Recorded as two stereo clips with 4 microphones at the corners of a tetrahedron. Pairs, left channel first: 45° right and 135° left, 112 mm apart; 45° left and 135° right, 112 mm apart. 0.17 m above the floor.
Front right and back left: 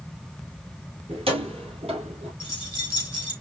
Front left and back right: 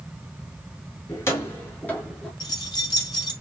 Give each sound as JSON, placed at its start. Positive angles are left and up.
{"t": 1.1, "sound": "keys jangling", "azimuth_deg": 110, "distance_m": 2.5}
{"t": 2.4, "sound": "keys jangling", "azimuth_deg": 95, "distance_m": 3.0}